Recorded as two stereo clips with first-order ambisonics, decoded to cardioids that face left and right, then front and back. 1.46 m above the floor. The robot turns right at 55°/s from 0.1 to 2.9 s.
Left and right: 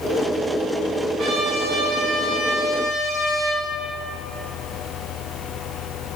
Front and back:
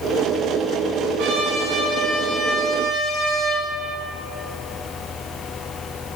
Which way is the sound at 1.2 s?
160° right.